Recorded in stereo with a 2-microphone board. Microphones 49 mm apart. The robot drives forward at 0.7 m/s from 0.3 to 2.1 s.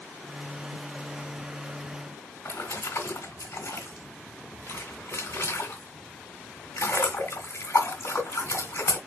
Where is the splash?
75° left (ahead or behind), 2 m.